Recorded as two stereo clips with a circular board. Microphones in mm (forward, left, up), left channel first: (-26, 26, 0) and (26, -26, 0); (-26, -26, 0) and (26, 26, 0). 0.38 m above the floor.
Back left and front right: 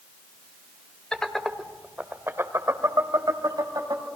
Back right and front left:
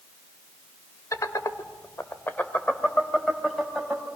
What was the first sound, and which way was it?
Laughter, 150° right.